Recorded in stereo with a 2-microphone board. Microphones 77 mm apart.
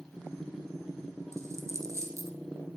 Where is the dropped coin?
45° right (ahead or behind), 1.2 m.